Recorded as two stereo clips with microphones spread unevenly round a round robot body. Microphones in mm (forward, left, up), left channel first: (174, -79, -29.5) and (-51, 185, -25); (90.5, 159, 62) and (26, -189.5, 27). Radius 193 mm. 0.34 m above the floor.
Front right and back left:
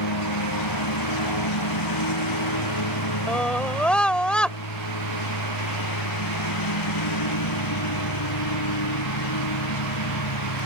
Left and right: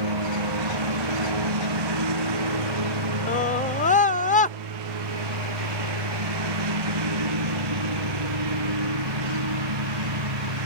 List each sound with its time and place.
0.0 s a lawn mower: 90° right
3.3 s a scream: 30° left